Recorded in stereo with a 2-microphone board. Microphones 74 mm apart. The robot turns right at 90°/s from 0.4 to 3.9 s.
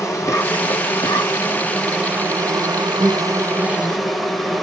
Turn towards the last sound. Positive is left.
turn(degrees=0)